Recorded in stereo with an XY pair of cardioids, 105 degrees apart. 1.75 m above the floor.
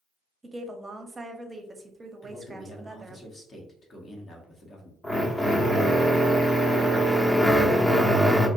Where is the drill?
20° left, 0.8 m.